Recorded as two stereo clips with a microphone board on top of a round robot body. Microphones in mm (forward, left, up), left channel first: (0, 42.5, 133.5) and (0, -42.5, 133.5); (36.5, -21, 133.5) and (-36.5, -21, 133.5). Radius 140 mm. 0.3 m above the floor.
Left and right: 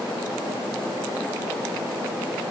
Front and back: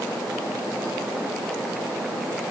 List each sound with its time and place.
Only background noise.